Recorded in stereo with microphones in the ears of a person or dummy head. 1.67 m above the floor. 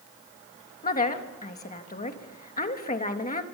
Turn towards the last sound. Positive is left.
turn(degrees=30)  # may be behind; listen again after turning